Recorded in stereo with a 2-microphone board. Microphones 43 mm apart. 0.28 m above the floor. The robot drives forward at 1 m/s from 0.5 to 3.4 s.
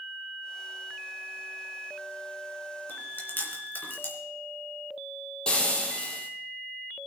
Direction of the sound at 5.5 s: 20° left (ahead or behind).